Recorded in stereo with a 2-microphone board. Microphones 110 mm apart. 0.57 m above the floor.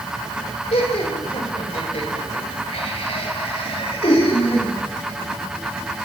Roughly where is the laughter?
Left.